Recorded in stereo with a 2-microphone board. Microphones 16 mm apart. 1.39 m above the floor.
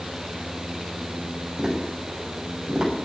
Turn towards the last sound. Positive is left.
turn(degrees=-35)  # may be behind; listen again after turning